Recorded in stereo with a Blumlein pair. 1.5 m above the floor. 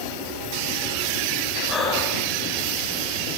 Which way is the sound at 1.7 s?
15° left.